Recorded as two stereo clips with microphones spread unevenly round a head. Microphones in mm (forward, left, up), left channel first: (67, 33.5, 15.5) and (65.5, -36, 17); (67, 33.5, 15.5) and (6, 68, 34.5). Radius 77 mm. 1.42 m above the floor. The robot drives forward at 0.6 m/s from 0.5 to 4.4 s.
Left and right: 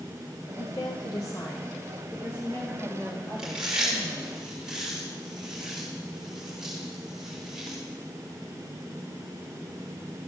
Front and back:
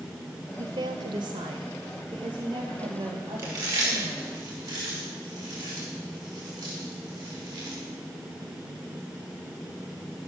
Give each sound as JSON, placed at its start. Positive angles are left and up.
{"t": 0.6, "sound": "a woman speaking", "azimuth_deg": 145, "distance_m": 0.7}
{"t": 3.4, "sound": "chewing", "azimuth_deg": -175, "distance_m": 1.4}